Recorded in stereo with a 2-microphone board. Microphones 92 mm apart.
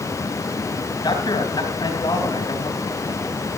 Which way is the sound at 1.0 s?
50° left (ahead or behind).